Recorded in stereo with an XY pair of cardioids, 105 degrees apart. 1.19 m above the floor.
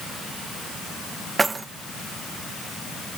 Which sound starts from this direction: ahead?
Keys jangling, at 1.4 s.